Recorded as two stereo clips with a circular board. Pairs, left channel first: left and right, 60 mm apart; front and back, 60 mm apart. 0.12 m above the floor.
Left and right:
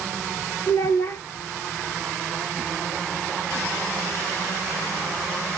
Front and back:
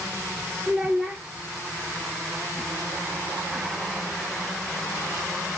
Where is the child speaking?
110° left, 1.0 m.